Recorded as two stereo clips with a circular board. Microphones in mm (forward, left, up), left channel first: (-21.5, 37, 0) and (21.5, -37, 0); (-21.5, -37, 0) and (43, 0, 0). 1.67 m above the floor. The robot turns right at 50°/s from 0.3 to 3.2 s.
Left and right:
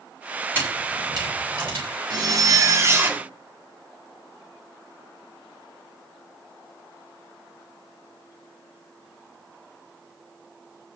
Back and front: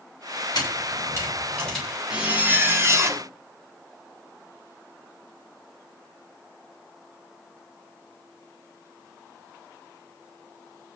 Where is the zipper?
45° right, 1.7 m; by 3.3 s 10° left, 1.7 m.